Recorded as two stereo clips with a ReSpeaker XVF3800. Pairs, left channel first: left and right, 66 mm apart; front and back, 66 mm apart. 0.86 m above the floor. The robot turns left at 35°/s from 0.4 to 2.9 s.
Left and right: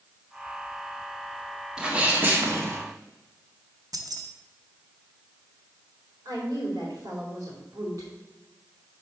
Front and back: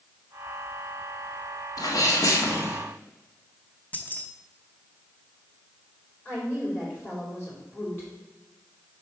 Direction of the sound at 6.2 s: 60° right.